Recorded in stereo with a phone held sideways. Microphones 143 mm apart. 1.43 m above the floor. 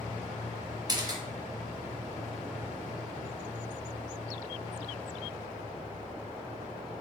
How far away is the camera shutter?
About 0.7 m.